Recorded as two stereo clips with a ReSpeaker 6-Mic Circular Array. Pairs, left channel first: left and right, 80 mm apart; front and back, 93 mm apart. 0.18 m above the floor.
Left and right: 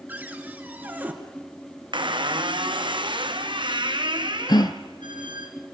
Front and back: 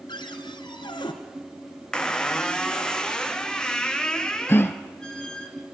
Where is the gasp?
65° left, 1.0 m.